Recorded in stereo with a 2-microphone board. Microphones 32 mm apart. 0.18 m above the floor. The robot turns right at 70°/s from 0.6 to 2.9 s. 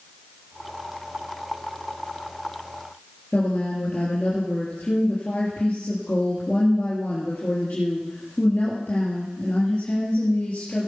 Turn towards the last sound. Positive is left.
turn(degrees=70)  # may be behind; listen again after turning